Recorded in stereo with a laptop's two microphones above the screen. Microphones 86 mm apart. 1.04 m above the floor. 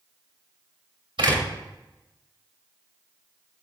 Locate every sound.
1.2 s a door slam: 75° right (ahead or behind), 3 m